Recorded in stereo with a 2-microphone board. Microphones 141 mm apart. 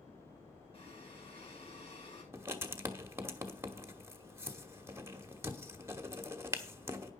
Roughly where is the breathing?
Left.